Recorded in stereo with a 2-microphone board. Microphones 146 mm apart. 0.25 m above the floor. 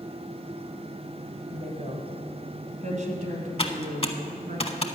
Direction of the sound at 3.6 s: 40° left (ahead or behind).